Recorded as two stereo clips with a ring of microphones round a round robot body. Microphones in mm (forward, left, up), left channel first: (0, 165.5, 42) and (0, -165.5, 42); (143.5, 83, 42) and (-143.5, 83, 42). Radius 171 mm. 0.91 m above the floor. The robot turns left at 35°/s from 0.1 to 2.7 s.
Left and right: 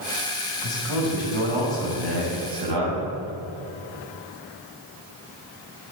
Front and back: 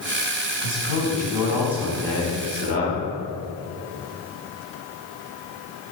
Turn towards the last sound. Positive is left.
turn(degrees=-60)